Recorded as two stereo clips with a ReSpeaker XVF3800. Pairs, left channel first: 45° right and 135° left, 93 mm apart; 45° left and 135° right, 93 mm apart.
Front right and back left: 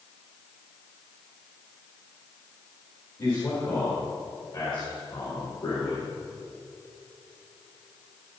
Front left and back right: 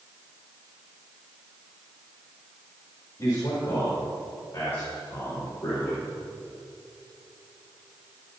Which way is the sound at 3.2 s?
10° right.